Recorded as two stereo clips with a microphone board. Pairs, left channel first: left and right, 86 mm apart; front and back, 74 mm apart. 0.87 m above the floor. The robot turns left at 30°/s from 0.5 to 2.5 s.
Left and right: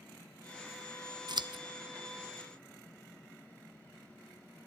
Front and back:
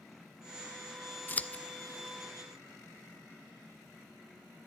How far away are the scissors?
About 0.5 m.